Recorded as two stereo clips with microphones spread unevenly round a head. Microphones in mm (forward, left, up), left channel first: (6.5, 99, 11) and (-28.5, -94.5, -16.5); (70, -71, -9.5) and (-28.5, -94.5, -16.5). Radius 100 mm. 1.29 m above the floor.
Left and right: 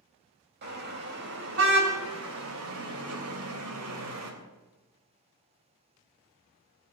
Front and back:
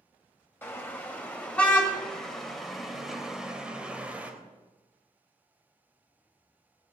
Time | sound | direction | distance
0.6 | a car horn | 55° right | 3.5 m